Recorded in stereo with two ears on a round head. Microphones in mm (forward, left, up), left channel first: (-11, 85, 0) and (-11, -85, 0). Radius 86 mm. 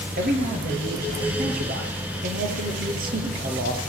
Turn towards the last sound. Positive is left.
turn(degrees=-45)  # may be behind; listen again after turning